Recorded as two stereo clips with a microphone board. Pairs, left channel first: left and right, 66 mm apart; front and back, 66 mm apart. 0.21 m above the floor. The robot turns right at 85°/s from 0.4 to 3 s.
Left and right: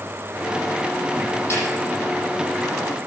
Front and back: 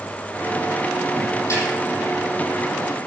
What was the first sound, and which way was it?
A snare drum, 40° left.